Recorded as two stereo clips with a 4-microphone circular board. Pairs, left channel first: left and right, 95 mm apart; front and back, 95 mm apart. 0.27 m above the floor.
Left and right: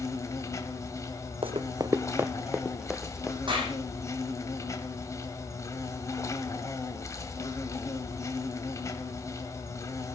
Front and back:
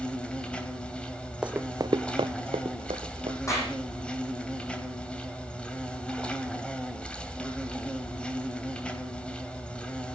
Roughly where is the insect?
Left.